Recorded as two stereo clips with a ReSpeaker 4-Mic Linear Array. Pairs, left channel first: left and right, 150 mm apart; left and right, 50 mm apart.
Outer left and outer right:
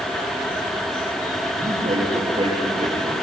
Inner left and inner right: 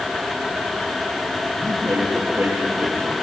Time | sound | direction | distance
1.5 | a man speaking | 45° right (ahead or behind) | 10 m